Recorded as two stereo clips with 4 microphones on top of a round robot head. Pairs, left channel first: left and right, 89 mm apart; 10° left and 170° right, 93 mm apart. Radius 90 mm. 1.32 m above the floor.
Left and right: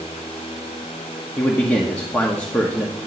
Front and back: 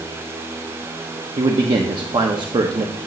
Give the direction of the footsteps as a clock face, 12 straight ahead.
No footsteps in this recording.